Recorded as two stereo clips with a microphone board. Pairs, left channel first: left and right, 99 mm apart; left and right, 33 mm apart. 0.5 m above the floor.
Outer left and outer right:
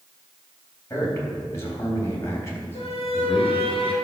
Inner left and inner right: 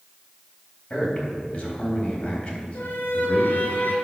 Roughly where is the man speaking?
Left.